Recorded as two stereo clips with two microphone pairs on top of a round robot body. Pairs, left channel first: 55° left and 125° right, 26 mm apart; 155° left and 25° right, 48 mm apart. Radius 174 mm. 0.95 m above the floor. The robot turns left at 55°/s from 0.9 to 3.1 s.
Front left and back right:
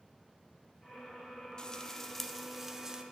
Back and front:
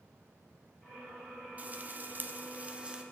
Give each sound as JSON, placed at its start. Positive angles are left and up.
{"t": 1.6, "sound": "frying", "azimuth_deg": 0, "distance_m": 1.0}